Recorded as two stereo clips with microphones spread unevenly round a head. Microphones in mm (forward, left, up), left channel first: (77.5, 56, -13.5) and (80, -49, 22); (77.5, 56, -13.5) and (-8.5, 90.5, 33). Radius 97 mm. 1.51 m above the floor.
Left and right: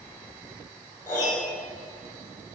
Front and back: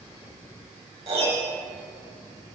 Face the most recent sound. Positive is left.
turn(degrees=175)